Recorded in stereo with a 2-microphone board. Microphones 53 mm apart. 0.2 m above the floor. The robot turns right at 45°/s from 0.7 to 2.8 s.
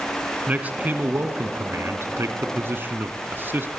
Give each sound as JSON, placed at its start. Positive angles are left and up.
{"t": 0.5, "sound": "a man speaking", "azimuth_deg": -145, "distance_m": 1.7}